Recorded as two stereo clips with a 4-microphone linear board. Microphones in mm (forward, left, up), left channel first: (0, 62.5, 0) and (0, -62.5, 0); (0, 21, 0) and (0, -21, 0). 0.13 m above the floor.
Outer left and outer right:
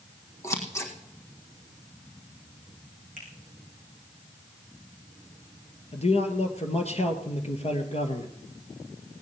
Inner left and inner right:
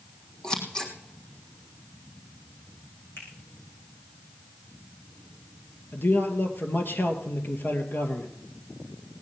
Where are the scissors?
25° left (ahead or behind), 3.5 m.